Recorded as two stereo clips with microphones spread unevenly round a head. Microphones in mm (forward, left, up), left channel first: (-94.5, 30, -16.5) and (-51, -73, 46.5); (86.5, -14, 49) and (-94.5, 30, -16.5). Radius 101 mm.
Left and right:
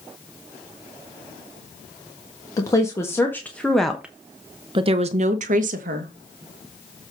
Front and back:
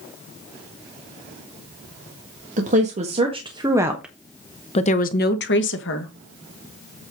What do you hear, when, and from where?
2.6 s a woman speaking: 145° left, 1.7 m; by 6.1 s 35° right, 1.4 m